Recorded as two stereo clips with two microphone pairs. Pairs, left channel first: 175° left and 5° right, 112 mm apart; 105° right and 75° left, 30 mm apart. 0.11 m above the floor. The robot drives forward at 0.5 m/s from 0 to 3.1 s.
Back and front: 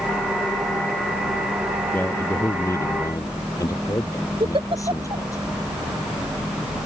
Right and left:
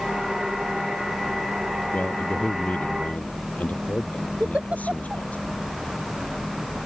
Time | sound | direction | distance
1.9 | a man speaking | 115° right | ?
4.4 | a giggle | 30° left | ?